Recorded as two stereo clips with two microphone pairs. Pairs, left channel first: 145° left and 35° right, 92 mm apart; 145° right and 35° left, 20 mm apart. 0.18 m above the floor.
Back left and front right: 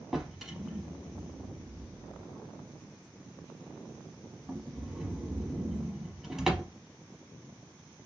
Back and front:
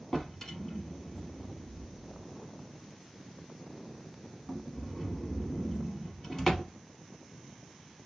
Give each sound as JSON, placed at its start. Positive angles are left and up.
{"t": 0.1, "sound": "a drawer", "azimuth_deg": -115, "distance_m": 0.8}